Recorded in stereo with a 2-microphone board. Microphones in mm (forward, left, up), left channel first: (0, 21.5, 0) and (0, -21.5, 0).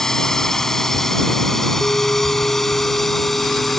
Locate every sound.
0.0 s a drone: 10° left (ahead or behind); by 3.8 s 5° left (ahead or behind)
1.8 s a bell: 50° left (ahead or behind)